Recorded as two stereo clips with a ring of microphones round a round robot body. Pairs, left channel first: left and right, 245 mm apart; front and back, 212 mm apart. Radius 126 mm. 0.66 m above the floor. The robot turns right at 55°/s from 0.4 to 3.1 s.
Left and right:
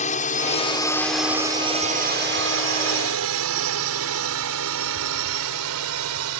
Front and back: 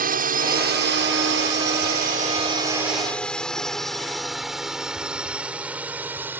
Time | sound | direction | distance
0.0 | a drone | 145° left | ?